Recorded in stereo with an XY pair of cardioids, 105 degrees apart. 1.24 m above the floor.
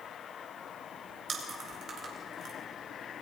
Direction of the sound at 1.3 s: 60° right.